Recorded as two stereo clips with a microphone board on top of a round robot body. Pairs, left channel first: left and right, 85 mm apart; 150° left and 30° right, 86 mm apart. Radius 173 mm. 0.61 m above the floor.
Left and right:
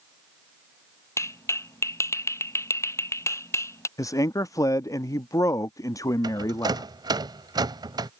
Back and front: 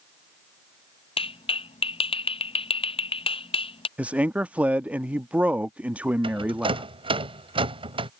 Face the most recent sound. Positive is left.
turn(degrees=-45)